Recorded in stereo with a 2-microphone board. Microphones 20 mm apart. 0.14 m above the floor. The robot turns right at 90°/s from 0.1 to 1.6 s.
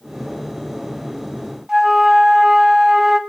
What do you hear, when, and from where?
1.7 s a flute: 20° right (ahead or behind), 0.8 m